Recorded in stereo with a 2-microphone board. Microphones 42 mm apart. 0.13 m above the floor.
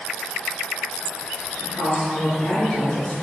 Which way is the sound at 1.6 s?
20° left (ahead or behind).